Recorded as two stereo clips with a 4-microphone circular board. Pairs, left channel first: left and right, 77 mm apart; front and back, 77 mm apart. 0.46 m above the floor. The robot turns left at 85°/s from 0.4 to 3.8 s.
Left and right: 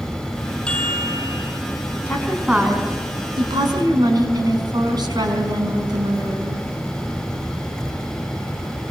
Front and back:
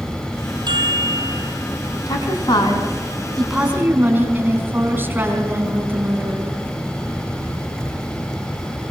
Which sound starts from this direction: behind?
A chime, at 0.7 s.